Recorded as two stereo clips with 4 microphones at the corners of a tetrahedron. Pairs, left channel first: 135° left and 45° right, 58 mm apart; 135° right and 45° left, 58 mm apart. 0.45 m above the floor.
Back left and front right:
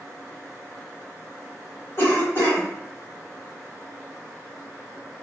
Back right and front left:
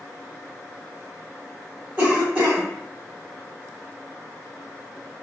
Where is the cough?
110° left, 1.6 m.